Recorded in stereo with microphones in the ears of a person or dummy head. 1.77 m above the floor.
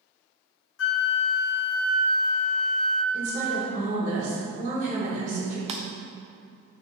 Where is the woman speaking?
40° right (ahead or behind), 2.0 m.